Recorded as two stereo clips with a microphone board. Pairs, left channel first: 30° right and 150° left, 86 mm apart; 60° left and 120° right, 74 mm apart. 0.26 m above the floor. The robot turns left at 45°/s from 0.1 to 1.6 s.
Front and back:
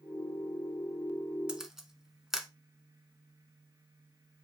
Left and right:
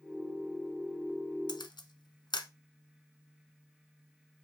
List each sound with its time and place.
1.5 s a camera shutter: 70° left, 0.8 m; by 2.5 s 65° left, 0.8 m